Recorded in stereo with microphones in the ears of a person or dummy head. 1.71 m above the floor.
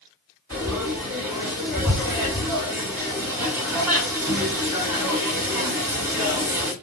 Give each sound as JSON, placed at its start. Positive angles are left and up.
{"t": 0.5, "sound": "frying", "side_deg": -5, "distance_m": 1.4}